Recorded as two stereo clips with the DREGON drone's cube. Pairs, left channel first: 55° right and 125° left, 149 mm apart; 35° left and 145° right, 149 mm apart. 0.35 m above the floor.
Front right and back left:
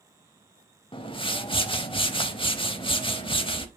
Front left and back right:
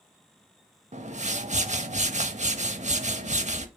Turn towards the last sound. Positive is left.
turn(degrees=-110)